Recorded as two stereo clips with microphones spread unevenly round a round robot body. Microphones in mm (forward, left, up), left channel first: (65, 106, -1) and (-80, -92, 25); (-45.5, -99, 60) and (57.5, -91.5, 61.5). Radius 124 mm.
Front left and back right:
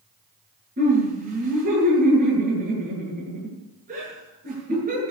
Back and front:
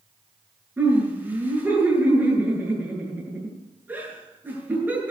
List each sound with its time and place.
0.8 s laughter: 65° right, 8 m